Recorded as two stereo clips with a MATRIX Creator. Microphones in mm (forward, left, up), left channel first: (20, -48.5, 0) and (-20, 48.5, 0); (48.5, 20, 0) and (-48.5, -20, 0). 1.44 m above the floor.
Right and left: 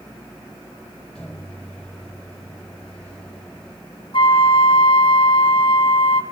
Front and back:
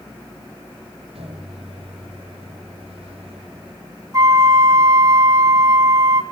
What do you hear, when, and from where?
1.1 s a microwave: 150° right, 4.5 m
4.1 s a flute: 100° right, 1.7 m